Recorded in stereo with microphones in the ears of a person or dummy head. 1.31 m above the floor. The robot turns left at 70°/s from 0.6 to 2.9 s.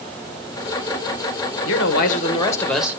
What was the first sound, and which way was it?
A man speaking, 80° left.